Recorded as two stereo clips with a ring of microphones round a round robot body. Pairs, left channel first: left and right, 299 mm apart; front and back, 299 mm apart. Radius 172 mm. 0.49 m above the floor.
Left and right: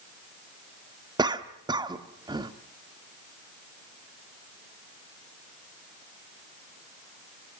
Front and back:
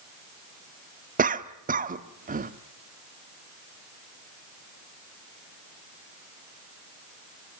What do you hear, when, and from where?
1.2 s a cough: 150° right, 1.2 m